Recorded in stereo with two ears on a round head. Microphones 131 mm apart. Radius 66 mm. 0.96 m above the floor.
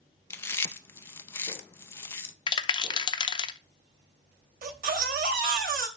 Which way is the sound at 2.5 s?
30° left (ahead or behind).